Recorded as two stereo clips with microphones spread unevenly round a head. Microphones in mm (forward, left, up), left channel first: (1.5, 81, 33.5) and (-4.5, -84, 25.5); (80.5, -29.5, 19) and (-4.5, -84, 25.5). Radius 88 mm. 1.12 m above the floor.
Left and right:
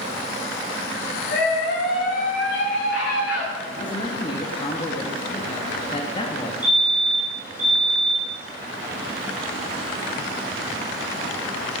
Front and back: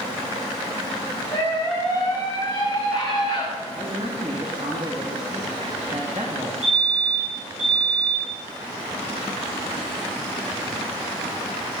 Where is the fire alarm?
170° right, 7 m.